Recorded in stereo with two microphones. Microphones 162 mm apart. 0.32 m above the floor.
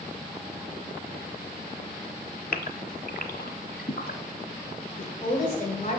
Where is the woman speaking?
35° left (ahead or behind), 1.6 m.